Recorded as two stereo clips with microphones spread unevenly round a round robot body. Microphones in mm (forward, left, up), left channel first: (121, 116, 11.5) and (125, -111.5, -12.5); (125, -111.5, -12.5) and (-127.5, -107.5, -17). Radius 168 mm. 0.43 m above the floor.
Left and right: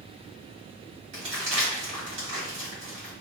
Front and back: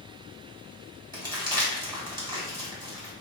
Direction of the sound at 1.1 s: 115° right.